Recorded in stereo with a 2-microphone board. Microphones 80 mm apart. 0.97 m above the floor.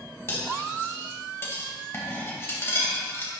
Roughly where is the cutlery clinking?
Left.